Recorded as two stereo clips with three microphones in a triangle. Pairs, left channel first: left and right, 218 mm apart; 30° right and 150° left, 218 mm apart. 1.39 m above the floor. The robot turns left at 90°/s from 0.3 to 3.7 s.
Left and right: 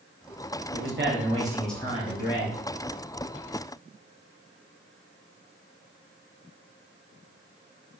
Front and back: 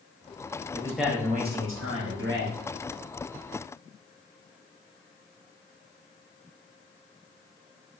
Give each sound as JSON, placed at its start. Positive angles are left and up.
{"t": 0.7, "sound": "a man speaking", "azimuth_deg": -95, "distance_m": 0.7}